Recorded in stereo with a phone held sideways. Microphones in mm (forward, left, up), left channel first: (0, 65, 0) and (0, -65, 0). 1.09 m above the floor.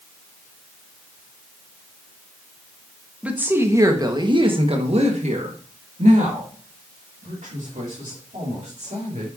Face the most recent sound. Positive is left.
turn(degrees=-75)  # may be behind; listen again after turning